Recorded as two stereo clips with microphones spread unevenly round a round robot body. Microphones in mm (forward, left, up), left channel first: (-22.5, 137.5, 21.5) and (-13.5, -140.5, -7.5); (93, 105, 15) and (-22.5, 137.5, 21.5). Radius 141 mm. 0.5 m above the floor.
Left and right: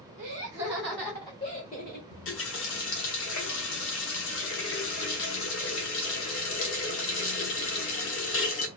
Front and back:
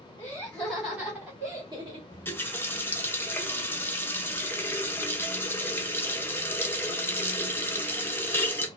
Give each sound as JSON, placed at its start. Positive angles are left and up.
{"t": 0.2, "sound": "laughter", "azimuth_deg": -65, "distance_m": 1.4}
{"t": 2.1, "sound": "a running tap", "azimuth_deg": 50, "distance_m": 0.8}